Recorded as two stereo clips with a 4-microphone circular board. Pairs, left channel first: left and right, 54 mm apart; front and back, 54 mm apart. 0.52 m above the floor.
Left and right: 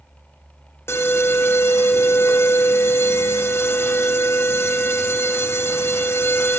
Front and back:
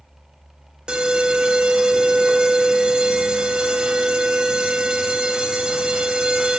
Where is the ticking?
I don't hear ticking.